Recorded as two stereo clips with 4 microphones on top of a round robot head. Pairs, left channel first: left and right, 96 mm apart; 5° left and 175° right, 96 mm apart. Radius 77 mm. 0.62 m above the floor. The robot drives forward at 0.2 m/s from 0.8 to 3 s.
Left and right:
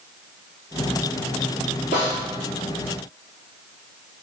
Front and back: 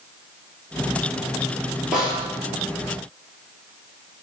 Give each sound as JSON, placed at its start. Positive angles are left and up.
{"t": 1.9, "sound": "a snare drum", "azimuth_deg": 100, "distance_m": 3.0}